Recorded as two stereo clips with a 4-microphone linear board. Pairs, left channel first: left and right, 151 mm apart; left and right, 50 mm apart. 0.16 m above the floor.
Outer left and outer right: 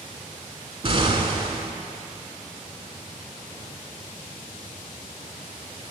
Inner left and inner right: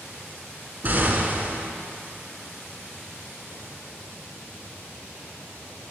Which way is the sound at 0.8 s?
40° right (ahead or behind).